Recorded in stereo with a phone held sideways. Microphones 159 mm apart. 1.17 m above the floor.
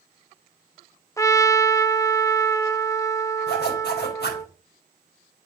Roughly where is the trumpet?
Centre.